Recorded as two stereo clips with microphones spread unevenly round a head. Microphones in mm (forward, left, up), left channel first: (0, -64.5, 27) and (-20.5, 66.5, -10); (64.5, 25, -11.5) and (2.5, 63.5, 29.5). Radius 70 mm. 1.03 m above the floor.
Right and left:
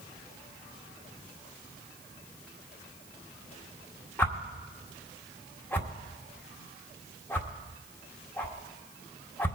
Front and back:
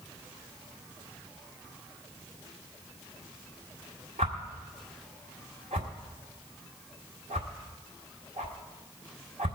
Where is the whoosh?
160° right, 1.6 m.